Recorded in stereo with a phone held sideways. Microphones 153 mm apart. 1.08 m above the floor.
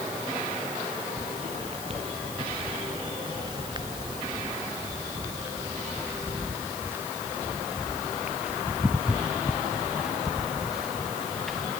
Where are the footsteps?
45° right (ahead or behind); by 11.7 s centre (ahead or behind).